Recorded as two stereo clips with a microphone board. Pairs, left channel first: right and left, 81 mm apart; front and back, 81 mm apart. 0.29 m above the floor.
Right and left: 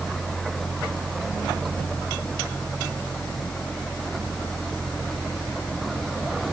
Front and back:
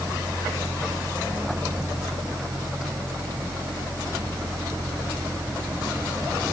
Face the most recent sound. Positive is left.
No sound to turn to.